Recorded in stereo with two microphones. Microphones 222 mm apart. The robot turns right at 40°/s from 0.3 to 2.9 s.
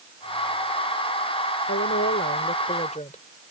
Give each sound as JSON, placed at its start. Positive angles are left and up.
{"t": 1.7, "sound": "a woman speaking", "azimuth_deg": 100}